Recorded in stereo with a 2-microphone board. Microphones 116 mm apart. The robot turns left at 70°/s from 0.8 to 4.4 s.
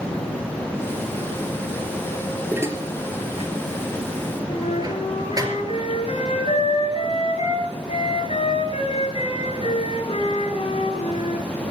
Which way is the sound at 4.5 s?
60° left (ahead or behind).